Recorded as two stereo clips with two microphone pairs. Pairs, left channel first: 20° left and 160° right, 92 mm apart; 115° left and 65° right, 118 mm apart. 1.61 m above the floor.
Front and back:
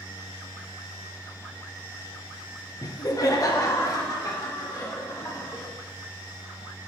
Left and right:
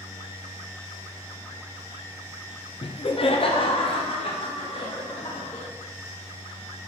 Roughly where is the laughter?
Left.